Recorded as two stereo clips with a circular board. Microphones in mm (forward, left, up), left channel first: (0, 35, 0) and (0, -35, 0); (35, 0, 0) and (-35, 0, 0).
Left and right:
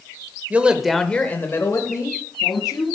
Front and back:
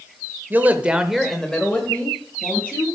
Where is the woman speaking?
140° right, 1.0 m; by 2.9 s 60° left, 2.5 m.